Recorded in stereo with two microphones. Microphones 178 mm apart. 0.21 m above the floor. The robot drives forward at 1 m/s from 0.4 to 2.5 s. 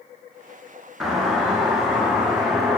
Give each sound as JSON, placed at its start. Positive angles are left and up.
{"t": 1.0, "sound": "a doorbell", "side_deg": 0, "distance_m": 4.5}